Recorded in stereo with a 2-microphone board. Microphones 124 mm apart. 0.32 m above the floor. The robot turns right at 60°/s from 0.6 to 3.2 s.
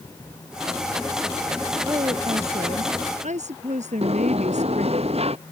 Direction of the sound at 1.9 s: 155° right.